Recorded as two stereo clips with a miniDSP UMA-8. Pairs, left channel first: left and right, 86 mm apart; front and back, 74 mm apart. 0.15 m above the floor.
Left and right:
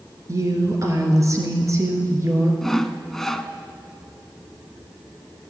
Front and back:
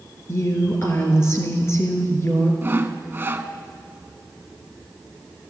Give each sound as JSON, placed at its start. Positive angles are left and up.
{"t": 0.3, "sound": "a woman speaking", "azimuth_deg": -45, "distance_m": 2.0}
{"t": 2.6, "sound": "sawing", "azimuth_deg": 170, "distance_m": 0.5}